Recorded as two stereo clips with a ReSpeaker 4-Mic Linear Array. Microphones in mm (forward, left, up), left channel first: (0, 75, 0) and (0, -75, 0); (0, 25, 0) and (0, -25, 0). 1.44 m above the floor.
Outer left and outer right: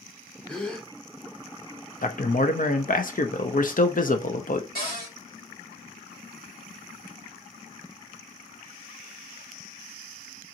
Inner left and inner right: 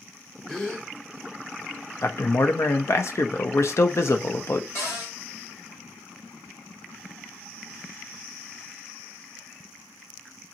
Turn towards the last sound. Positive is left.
turn(degrees=70)  # may be behind; listen again after turning